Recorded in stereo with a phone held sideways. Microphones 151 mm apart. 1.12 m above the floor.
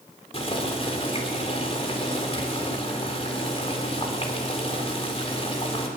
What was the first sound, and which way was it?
Boiling, 40° left (ahead or behind).